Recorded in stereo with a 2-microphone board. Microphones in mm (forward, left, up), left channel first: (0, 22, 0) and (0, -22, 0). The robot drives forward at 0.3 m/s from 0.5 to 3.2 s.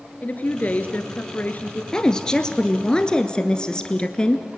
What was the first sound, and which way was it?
A woman speaking, 35° left (ahead or behind).